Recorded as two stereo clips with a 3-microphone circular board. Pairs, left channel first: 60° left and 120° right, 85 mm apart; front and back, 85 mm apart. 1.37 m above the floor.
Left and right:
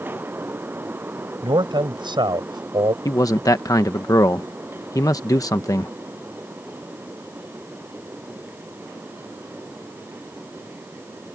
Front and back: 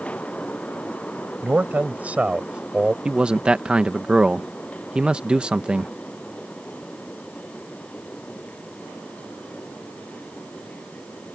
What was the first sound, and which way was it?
A man speaking, 115° right.